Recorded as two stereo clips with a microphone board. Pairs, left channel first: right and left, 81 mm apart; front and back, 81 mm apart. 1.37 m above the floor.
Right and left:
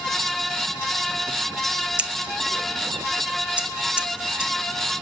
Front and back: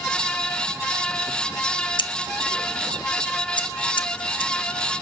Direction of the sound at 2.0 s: 15° left.